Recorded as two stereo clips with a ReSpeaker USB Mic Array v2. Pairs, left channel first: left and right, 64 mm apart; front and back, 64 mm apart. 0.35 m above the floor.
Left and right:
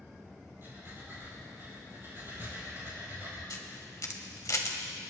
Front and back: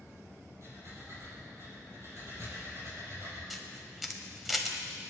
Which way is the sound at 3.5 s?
90° left.